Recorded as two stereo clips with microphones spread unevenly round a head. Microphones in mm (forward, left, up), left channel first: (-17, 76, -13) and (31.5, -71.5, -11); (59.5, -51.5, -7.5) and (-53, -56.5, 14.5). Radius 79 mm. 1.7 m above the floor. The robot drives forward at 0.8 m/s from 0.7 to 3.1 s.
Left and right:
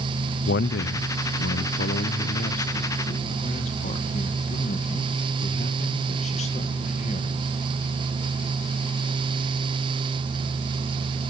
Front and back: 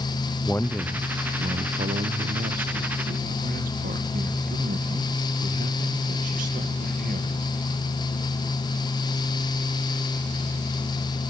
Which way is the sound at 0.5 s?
85° left.